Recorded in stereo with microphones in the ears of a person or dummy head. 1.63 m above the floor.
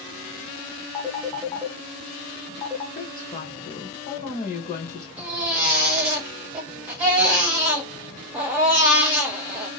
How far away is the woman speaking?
About 1.2 m.